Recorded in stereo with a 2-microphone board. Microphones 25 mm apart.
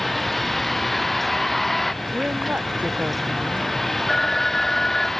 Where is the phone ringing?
15° left (ahead or behind).